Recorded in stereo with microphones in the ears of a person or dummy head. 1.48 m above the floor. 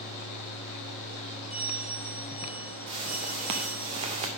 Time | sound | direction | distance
1.5 | a bell | 5° right (ahead or behind) | 3.5 m
2.9 | a whoosh | 20° right (ahead or behind) | 0.7 m